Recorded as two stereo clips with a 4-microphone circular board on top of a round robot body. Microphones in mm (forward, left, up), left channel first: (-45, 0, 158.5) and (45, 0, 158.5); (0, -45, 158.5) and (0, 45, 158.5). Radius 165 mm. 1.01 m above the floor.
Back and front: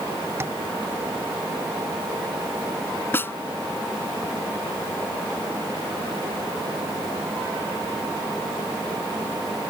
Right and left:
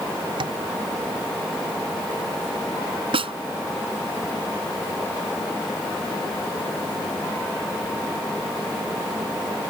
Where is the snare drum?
110° left.